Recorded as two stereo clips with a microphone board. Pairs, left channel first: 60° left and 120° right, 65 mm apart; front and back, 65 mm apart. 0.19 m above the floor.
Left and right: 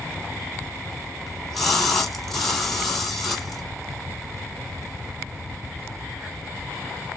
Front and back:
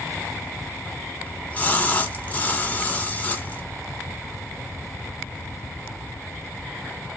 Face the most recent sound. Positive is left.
turn(degrees=-15)